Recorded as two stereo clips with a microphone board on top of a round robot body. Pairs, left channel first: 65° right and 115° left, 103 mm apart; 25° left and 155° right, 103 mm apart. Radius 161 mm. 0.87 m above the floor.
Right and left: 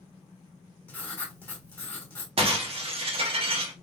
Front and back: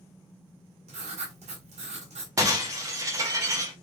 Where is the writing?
140° right, 1.4 m.